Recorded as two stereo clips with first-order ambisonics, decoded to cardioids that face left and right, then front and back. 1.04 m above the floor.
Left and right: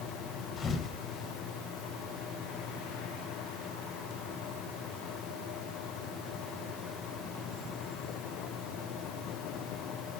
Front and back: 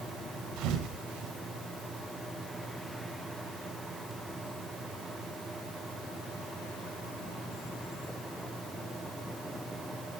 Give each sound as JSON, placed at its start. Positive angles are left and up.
{"t": 0.6, "sound": "a thud", "azimuth_deg": 150, "distance_m": 1.6}